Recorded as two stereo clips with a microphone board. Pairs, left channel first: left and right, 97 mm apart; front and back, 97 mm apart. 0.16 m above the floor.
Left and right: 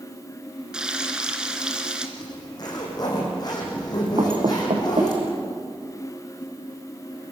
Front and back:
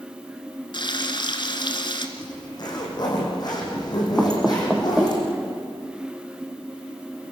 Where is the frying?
10° right, 2 m.